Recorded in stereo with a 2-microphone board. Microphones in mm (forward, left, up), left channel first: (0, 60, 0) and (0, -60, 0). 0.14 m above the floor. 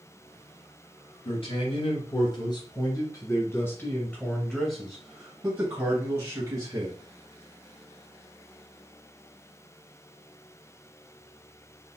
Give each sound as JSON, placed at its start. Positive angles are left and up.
{"t": 1.2, "sound": "a man speaking", "side_deg": 50, "distance_m": 2.0}